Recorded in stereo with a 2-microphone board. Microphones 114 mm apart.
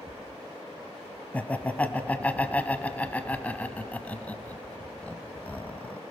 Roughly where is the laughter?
Centre.